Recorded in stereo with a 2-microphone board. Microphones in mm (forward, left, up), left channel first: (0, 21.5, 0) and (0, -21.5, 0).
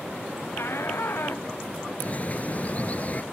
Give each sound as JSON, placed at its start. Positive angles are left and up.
{"t": 0.6, "sound": "a shout", "side_deg": 65}
{"t": 2.0, "sound": "a bird", "side_deg": 40}